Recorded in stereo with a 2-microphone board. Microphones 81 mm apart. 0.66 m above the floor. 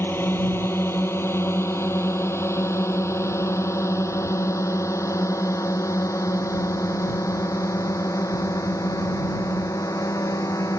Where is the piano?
I don't hear a piano.